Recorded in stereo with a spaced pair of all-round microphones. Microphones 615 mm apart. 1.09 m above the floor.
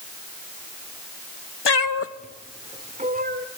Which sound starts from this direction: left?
A cat meowing, at 1.6 s.